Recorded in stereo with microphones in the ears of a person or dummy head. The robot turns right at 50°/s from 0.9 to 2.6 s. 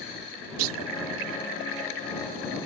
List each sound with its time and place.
0.6 s a clunk: 80° right